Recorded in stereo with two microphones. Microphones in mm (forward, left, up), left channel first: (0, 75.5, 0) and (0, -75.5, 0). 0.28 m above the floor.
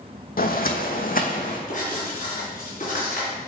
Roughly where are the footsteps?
Left.